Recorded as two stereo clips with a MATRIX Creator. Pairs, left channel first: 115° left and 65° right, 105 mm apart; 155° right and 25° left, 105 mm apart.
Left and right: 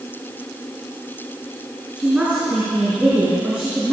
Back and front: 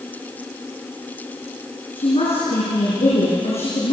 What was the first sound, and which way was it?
A woman speaking, 150° right.